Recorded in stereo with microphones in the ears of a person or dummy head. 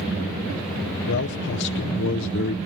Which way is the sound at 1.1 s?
55° left (ahead or behind).